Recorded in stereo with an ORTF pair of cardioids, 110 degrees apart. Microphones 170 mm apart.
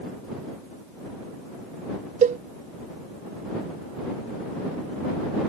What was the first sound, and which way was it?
A cowbell, 45° right.